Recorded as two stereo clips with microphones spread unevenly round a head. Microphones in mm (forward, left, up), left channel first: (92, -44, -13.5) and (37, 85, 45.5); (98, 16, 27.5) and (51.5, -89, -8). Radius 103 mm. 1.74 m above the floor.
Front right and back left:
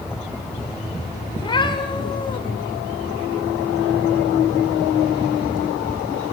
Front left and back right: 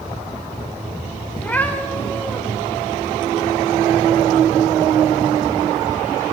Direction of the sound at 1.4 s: Straight ahead.